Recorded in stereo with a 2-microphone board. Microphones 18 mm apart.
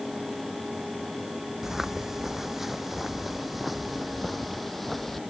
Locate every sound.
1.6 s footsteps: 20° right (ahead or behind); by 5.2 s 15° left (ahead or behind)